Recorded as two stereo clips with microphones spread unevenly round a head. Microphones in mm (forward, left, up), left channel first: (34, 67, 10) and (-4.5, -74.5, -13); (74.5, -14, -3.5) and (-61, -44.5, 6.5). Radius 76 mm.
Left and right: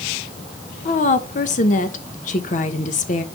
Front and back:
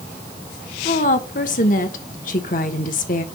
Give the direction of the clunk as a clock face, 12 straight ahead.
No clunk in this recording.